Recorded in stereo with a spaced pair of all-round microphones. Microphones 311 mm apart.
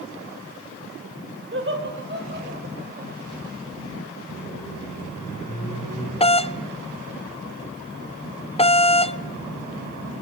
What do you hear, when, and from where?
1.5 s laughter: 40° right (ahead or behind), 5.5 m; by 3.1 s 30° right (ahead or behind), 7 m
4.3 s a microwave: 80° left, 7 m
6.2 s a doorbell: 20° left (ahead or behind), 0.5 m